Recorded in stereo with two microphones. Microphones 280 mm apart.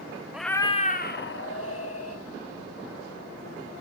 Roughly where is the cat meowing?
Centre.